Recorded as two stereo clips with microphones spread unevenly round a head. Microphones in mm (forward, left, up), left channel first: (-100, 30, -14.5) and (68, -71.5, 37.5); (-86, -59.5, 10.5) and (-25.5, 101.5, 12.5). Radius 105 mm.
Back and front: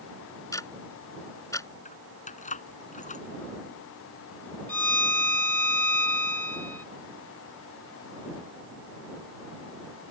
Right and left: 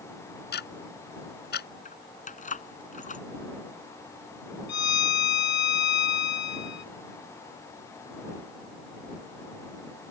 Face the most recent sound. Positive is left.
turn(degrees=-125)